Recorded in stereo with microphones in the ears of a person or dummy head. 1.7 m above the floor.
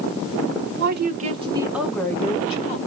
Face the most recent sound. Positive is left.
turn(degrees=45)  # may be behind; listen again after turning